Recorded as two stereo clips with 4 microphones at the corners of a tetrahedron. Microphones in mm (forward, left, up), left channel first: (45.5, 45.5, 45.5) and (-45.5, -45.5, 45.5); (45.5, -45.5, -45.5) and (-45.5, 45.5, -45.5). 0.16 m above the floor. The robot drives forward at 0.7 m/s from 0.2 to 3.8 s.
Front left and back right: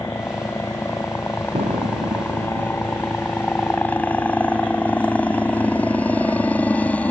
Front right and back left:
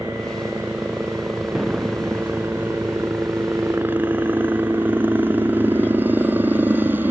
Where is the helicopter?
70° left; by 7.1 s 100° left.